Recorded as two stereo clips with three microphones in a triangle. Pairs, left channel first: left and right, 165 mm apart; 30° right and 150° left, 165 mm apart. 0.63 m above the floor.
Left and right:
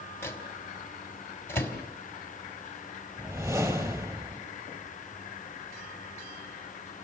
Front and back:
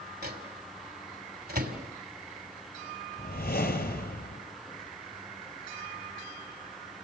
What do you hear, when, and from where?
0.2 s a microwave: 165° left, 3 m
3.2 s a whoosh: 20° right, 3.5 m